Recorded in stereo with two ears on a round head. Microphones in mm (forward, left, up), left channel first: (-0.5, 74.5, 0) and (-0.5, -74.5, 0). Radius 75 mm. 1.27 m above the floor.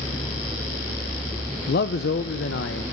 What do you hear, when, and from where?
1.7 s a man speaking: 60° left (ahead or behind), 0.7 m; by 2.8 s 75° left (ahead or behind), 1.6 m